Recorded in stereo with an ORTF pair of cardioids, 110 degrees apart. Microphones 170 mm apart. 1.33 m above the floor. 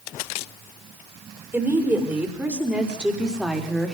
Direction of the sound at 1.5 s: 10° right.